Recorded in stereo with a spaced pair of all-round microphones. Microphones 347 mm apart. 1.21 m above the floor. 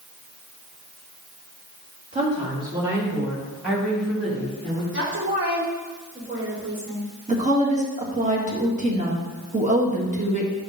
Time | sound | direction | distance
2.1 | a woman speaking | 20° right (ahead or behind) | 2.5 m
4.9 | a woman speaking | 35° right (ahead or behind) | 3 m
7.3 | a woman speaking | 20° right (ahead or behind) | 1.9 m